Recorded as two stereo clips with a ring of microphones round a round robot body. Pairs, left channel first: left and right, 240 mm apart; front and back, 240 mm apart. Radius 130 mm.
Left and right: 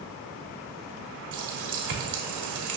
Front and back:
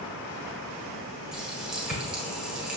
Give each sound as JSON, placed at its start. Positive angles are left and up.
{"t": 1.3, "sound": "a running tap", "azimuth_deg": -90, "distance_m": 1.7}